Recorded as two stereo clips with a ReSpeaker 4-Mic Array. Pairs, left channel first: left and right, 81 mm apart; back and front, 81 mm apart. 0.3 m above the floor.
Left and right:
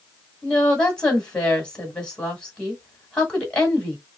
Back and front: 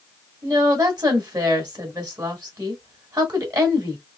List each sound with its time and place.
0.4 s a woman speaking: 15° left, 2.0 m